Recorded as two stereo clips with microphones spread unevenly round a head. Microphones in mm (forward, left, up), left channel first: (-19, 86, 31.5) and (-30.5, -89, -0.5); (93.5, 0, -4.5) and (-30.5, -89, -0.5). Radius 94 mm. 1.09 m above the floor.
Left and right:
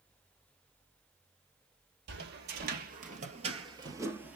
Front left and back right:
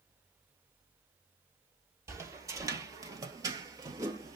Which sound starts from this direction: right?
Footsteps, at 2.1 s.